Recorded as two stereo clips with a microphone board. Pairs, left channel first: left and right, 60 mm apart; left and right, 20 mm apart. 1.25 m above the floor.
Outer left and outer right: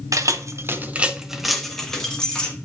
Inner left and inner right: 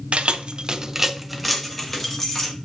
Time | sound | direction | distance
0.1 | keys jangling | 70° right (ahead or behind) | 0.6 m